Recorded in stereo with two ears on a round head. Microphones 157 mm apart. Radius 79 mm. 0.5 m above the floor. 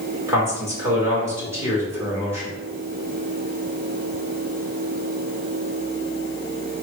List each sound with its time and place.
0.3 s a man speaking: 15° right (ahead or behind), 1.5 m